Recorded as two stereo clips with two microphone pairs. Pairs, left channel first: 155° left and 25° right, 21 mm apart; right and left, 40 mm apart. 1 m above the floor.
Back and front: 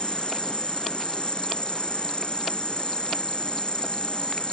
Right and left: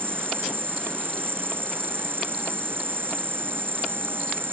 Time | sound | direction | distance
0.0 | an insect | 115° left | ?